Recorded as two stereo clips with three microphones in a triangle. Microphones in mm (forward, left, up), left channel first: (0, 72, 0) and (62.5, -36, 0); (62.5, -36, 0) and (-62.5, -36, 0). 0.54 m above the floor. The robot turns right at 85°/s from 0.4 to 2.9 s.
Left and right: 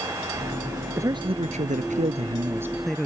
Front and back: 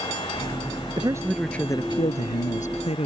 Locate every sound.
1.0 s a man speaking: 130° right; by 3.1 s 35° left